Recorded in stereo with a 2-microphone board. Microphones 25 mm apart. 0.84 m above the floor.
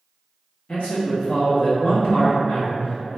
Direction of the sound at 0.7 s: 60° left (ahead or behind).